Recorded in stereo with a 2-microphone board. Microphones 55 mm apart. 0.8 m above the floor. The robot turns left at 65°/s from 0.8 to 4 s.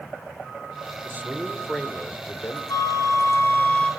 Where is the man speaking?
135° right, 2.5 m; by 2.6 s 125° left, 2.5 m.